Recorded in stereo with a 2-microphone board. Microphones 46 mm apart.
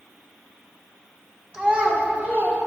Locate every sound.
1.5 s a child speaking: 15° right (ahead or behind), 1.3 m; by 2.6 s 45° right (ahead or behind), 2.5 m